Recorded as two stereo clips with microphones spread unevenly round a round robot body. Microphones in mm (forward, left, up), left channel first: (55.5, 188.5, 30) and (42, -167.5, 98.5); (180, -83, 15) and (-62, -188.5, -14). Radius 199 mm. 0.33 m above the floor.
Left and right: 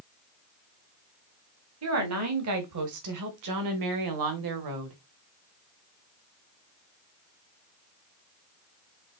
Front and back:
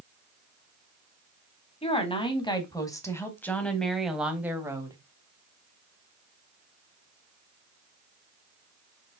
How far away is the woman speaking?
About 2.5 m.